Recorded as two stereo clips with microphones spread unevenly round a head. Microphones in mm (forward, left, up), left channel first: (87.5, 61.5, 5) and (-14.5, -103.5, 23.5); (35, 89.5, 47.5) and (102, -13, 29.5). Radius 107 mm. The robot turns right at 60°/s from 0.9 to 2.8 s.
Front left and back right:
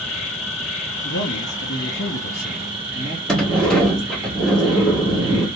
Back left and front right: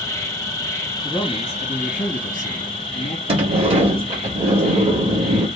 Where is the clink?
I don't hear a clink.